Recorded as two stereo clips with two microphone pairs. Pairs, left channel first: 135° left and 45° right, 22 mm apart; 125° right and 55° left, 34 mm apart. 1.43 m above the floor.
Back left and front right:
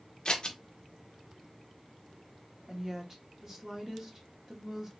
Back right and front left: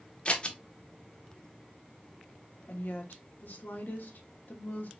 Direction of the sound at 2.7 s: 110° right.